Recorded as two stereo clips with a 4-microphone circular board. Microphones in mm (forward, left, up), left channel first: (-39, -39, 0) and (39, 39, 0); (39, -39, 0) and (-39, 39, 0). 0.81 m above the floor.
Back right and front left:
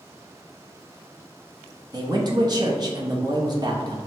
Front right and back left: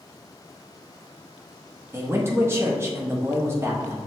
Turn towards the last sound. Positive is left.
turn(degrees=75)